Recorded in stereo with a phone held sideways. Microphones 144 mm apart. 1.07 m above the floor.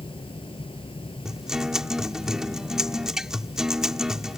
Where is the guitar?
5° right (ahead or behind).